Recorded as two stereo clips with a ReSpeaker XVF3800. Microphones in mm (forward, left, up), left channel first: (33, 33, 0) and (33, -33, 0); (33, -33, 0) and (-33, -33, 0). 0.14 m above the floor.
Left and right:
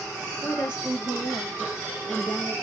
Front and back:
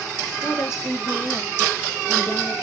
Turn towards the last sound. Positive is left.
turn(degrees=25)